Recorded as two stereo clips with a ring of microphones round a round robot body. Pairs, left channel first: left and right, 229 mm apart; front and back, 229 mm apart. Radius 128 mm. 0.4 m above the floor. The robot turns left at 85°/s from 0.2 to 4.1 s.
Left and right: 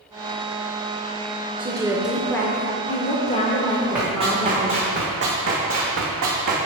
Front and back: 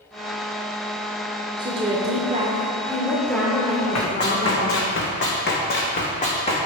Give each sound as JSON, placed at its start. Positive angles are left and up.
{"t": 1.6, "sound": "a woman speaking", "azimuth_deg": -130, "distance_m": 0.9}
{"t": 4.0, "sound": "running footsteps", "azimuth_deg": -5, "distance_m": 1.9}